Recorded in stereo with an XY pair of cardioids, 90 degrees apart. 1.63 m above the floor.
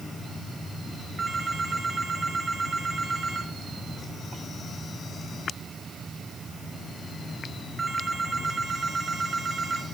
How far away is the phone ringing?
About 6 m.